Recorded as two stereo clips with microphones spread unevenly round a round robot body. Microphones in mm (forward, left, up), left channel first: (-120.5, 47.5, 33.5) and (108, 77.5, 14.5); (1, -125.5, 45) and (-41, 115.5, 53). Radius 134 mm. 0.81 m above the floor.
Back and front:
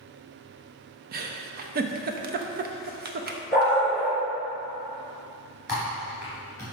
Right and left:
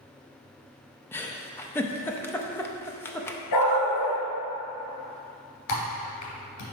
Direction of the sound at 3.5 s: 75° right.